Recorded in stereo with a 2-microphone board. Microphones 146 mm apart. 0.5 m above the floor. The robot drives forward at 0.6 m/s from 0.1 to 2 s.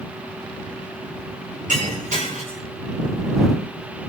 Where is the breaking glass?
60° right (ahead or behind), 7 m; by 2.6 s 55° right (ahead or behind), 7 m.